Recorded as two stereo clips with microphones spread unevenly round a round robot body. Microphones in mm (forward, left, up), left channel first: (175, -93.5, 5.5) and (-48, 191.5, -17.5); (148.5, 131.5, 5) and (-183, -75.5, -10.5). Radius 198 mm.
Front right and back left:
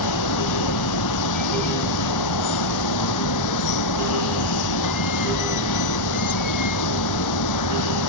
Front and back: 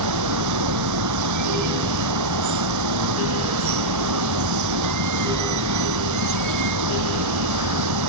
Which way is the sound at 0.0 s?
100° right.